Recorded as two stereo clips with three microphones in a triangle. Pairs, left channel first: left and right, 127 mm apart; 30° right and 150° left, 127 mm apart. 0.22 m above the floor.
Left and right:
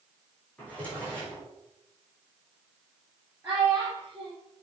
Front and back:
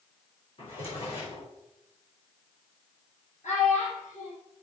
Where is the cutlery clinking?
I don't hear cutlery clinking.